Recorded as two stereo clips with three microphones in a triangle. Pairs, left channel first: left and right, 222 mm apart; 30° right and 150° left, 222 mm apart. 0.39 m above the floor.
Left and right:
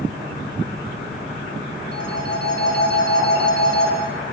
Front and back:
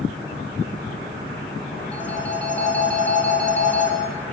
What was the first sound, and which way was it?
A phone ringing, 55° left.